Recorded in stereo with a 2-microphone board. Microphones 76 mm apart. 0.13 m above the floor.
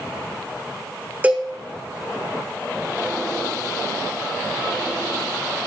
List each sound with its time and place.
1.2 s a cowbell: 20° right (ahead or behind), 3 m